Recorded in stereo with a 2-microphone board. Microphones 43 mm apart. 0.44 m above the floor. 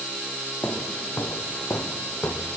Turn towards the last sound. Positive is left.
turn(degrees=55)  # may be behind; listen again after turning